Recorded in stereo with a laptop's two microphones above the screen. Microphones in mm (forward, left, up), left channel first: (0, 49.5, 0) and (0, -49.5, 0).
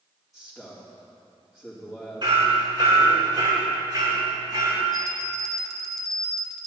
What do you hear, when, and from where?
0.3 s a man speaking: centre (ahead or behind), 2.5 m
2.2 s hammering: 55° right (ahead or behind), 3 m
4.9 s a bell: centre (ahead or behind), 0.7 m